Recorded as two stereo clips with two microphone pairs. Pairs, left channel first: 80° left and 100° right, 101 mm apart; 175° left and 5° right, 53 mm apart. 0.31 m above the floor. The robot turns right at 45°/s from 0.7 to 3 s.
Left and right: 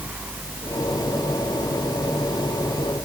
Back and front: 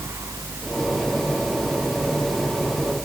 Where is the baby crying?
No baby crying in this recording.